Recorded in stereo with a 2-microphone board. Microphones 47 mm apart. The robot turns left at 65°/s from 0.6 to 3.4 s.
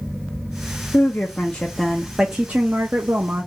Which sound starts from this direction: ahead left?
A woman speaking, at 0.9 s.